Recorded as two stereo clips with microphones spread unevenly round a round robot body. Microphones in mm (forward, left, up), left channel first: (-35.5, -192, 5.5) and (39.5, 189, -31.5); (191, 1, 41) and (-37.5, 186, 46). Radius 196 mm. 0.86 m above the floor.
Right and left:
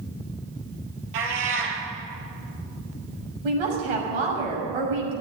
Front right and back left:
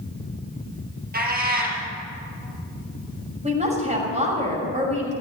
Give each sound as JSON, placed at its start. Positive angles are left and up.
{"t": 1.1, "sound": "a cat meowing", "azimuth_deg": 80, "distance_m": 4.5}
{"t": 3.4, "sound": "a woman speaking", "azimuth_deg": 75, "distance_m": 6.5}